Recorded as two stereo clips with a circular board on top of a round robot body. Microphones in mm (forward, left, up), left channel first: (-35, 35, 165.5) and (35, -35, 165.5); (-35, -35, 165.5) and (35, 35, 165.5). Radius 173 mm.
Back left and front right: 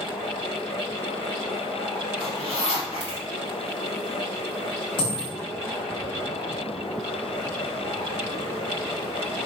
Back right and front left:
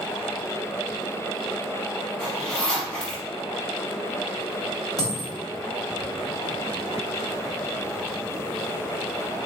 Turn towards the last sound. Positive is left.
turn(degrees=170)